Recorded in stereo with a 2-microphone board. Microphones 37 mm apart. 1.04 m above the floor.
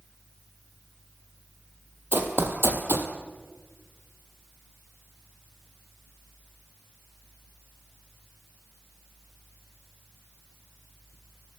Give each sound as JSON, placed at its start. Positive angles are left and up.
{"t": 2.1, "sound": "running footsteps", "side_deg": -65, "distance_m": 2.0}